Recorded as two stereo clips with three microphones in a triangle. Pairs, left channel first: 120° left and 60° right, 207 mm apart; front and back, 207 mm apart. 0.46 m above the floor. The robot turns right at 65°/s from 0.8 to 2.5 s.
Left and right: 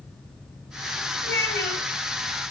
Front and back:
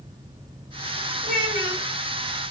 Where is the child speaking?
135° left, 2 m; by 1.9 s 175° left, 2 m.